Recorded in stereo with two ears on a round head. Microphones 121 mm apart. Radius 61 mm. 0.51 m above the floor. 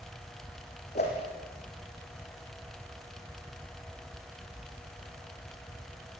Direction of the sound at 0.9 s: 50° left (ahead or behind).